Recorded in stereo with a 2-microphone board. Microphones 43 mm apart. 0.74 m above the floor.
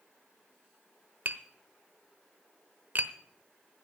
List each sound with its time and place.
1.2 s tapping: 50° right (ahead or behind), 0.9 m